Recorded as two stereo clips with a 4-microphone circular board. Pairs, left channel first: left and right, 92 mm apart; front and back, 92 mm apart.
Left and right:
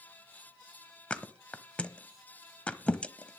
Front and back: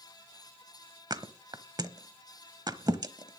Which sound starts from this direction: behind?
A thud, at 1.1 s.